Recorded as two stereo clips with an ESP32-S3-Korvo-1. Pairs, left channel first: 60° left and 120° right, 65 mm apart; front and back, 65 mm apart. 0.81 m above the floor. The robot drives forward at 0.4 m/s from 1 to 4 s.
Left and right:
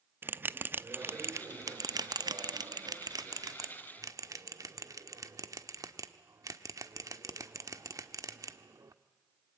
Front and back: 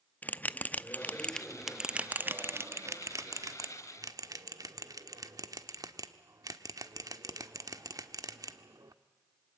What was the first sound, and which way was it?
A bell, 65° right.